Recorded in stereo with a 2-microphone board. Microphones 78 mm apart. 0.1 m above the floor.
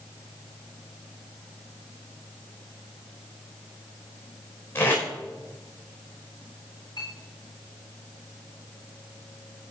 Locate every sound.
4.8 s tape being pulled: 30° left (ahead or behind), 6.5 m
7.0 s a clink: 60° left (ahead or behind), 5.5 m